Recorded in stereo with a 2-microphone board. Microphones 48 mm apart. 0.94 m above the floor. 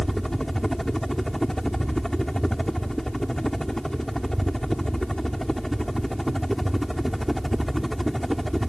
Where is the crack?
I don't hear a crack.